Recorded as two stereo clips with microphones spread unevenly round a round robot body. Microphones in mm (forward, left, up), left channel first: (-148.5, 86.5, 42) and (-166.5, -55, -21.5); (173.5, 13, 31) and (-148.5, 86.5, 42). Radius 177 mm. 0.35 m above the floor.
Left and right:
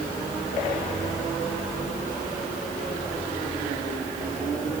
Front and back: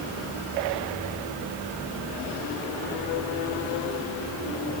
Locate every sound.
Only background noise.